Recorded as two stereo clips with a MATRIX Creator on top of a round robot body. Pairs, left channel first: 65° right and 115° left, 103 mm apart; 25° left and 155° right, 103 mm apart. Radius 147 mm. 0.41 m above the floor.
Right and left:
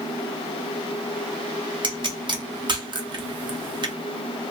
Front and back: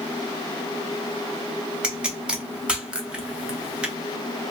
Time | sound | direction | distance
1.8 | a pop | 125° left | 1.0 m